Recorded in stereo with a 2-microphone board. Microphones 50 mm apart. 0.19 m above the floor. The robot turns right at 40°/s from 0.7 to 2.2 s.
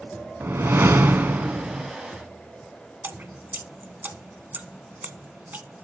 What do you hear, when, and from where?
0.4 s a whoosh: 80° right, 0.5 m; by 1.9 s 35° right, 0.5 m
3.0 s dripping: 40° right (ahead or behind), 0.7 m